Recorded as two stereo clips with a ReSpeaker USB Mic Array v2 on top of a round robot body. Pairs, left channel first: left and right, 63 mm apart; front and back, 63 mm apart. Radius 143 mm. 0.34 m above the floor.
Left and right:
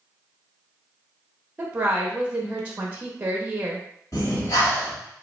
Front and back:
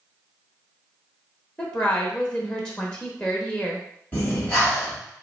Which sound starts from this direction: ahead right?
A woman speaking, at 1.6 s.